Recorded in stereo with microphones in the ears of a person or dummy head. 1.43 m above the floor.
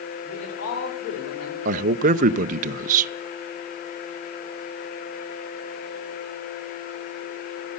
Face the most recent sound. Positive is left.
turn(degrees=-45)  # may be behind; listen again after turning